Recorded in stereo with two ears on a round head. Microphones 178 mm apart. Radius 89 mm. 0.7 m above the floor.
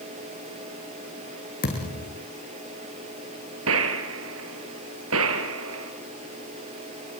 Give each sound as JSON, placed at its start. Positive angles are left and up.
{"t": 1.6, "sound": "a thud", "side_deg": 45, "distance_m": 7.0}
{"t": 3.7, "sound": "a gunshot", "side_deg": -80, "distance_m": 3.5}